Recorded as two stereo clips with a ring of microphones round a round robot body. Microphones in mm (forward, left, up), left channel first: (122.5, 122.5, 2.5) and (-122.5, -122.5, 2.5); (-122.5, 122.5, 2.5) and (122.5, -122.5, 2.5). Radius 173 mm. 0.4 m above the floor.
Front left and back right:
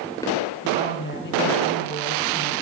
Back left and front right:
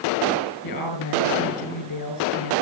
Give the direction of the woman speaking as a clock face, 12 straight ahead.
8 o'clock.